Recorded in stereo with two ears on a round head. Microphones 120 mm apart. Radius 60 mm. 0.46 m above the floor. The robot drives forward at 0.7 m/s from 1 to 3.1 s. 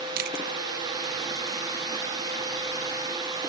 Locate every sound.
0.2 s chewing: 70° right (ahead or behind)